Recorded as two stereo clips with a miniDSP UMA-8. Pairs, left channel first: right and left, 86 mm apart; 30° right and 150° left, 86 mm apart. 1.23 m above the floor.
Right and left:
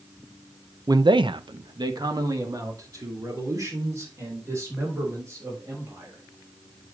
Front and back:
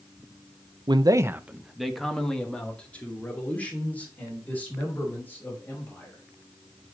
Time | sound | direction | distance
0.9 | a man speaking | 130° left | 0.6 m